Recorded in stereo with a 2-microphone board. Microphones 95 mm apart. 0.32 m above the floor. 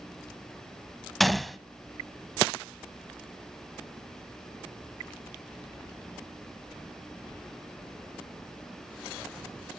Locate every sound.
1.2 s a gunshot: centre (ahead or behind), 0.5 m